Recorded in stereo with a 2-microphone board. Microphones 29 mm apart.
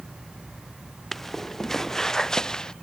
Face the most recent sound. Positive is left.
turn(degrees=20)  # may be behind; listen again after turning